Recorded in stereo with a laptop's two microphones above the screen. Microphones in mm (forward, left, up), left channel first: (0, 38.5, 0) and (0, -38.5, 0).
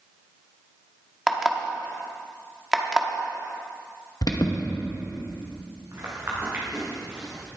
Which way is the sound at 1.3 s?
5° right (ahead or behind).